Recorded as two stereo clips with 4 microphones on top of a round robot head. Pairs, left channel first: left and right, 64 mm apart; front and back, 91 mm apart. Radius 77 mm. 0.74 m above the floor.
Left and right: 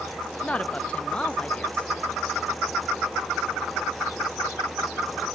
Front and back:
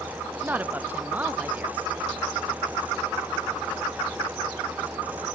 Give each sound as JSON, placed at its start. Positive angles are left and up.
{"t": 0.4, "sound": "a woman speaking", "azimuth_deg": 135, "distance_m": 0.7}